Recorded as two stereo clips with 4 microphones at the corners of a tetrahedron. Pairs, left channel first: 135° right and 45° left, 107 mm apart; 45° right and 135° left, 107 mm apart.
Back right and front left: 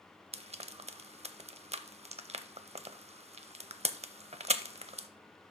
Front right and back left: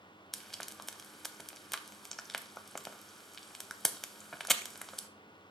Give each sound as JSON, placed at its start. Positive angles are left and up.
{"t": 0.3, "sound": "frying", "azimuth_deg": 45, "distance_m": 0.5}